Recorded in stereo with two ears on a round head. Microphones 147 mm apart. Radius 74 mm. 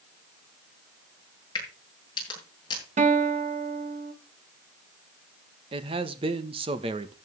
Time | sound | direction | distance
1.6 | a crack | 30° left (ahead or behind) | 8.5 m
3.0 | a guitar | 45° right (ahead or behind) | 2 m
5.7 | a man speaking | 35° right (ahead or behind) | 1.4 m